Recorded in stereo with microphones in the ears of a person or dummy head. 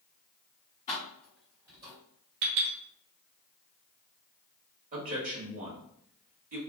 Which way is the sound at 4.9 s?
35° right (ahead or behind).